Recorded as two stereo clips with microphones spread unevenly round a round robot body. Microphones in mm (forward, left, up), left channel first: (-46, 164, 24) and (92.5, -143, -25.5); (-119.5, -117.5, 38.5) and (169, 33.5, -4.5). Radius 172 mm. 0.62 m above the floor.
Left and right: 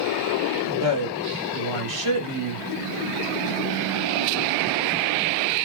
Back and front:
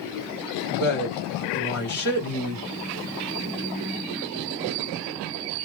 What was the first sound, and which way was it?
A woman speaking, 95° right.